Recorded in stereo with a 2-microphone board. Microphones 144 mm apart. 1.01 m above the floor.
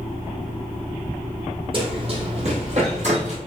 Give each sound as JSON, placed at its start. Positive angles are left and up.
{"t": 1.7, "sound": "running footsteps", "side_deg": -40, "distance_m": 1.6}